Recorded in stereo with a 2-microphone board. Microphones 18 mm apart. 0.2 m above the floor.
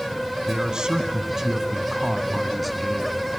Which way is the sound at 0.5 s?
40° right (ahead or behind).